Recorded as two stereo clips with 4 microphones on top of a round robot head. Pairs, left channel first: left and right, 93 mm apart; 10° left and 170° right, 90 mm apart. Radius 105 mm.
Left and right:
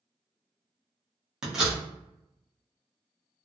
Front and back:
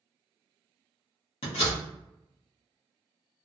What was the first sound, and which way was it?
A door slam, 5° right.